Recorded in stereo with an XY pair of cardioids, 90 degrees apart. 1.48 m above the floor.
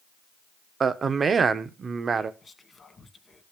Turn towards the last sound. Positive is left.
turn(degrees=40)